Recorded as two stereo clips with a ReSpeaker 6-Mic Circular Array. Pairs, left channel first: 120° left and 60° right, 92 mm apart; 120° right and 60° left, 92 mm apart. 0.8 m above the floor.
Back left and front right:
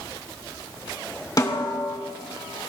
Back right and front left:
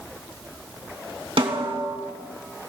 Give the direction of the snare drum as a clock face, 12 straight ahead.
10 o'clock.